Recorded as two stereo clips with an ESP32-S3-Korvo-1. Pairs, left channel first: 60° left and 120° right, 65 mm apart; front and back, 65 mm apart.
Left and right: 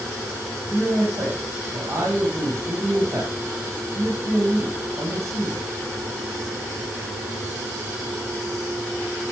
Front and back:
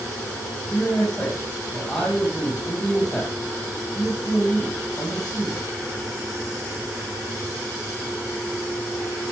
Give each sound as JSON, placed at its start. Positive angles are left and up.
{"t": 0.7, "sound": "a man speaking", "azimuth_deg": -80, "distance_m": 7.5}